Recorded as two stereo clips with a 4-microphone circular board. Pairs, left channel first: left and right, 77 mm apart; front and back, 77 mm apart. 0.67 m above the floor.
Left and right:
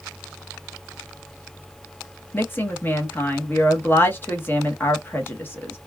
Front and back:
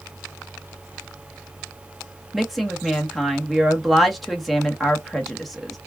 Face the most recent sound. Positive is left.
turn(degrees=90)